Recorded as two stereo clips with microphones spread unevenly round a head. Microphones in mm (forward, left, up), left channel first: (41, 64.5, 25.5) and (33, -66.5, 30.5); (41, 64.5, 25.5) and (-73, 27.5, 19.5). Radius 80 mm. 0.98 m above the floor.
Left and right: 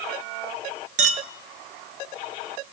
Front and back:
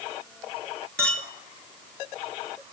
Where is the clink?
65° right, 0.8 m.